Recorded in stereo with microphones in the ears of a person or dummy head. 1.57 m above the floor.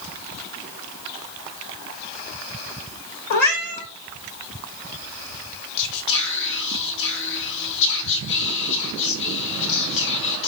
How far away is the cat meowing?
About 1.0 m.